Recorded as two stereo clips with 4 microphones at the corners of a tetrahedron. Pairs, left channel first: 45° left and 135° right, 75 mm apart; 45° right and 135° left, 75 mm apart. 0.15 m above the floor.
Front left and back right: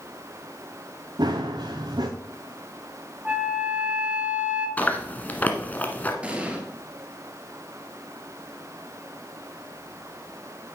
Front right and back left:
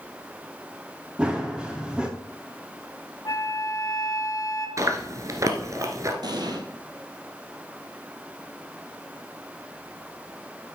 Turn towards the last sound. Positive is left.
turn(degrees=155)